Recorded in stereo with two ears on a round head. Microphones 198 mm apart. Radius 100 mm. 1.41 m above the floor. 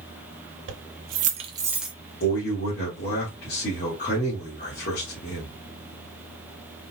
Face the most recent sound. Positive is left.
turn(degrees=35)  # may be behind; listen again after turning